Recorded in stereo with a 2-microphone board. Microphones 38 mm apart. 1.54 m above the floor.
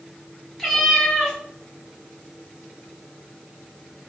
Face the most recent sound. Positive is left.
turn(degrees=10)  # may be behind; listen again after turning